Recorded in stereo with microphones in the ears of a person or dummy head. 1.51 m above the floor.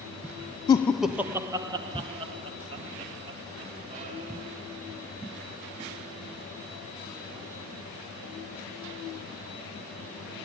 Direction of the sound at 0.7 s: 20° left (ahead or behind).